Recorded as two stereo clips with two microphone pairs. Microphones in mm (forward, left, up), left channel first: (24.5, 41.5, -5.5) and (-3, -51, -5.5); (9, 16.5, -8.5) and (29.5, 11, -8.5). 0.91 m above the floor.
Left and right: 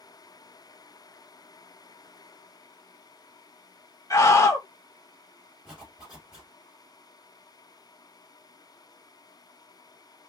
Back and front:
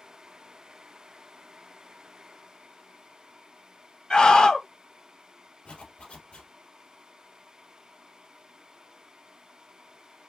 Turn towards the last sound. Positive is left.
turn(degrees=175)